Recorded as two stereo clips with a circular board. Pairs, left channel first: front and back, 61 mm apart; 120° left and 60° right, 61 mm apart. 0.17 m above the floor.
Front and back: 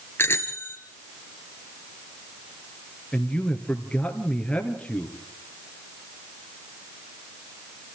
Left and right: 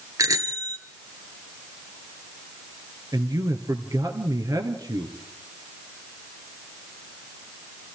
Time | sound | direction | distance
0.2 | a bicycle bell | 45° right | 2 m
3.1 | a man speaking | 75° right | 3 m